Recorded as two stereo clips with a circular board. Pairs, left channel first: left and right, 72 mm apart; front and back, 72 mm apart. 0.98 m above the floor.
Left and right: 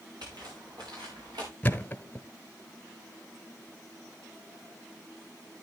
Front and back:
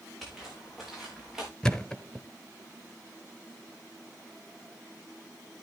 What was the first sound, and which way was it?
Footsteps, 90° right.